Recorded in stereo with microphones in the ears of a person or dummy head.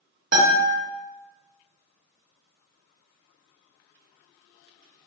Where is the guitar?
50° right (ahead or behind), 0.7 m.